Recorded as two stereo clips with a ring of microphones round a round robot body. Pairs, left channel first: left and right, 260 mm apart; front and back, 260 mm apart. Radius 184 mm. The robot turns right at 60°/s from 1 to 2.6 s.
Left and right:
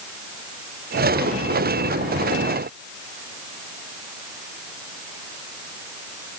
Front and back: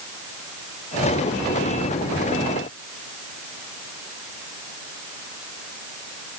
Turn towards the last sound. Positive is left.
No sound to turn to.